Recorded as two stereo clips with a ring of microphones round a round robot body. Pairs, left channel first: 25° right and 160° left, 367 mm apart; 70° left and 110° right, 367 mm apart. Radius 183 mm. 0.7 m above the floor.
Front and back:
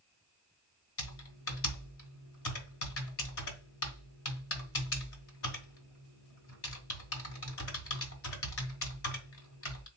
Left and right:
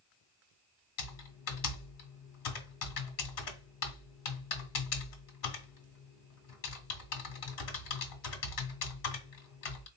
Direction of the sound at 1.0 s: 30° left.